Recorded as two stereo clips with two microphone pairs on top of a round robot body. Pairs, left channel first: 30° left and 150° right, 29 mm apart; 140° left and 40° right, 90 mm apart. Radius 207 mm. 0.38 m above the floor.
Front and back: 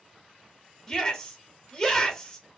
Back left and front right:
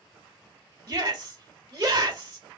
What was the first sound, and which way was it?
A shout, 35° right.